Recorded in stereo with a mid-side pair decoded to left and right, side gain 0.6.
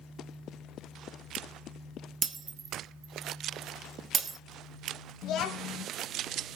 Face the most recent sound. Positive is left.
turn(degrees=60)